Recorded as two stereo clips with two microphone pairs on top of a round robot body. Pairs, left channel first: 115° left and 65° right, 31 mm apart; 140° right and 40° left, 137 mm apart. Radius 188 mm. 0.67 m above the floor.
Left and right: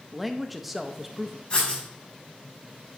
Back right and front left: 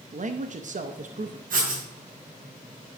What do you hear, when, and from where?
0.1 s a man speaking: 15° left, 0.8 m
1.5 s writing: 55° left, 5 m